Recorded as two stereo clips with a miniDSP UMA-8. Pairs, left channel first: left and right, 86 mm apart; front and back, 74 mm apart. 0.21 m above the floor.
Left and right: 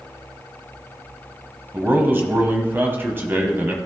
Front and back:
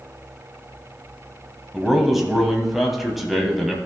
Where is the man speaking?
95° right, 1.1 m.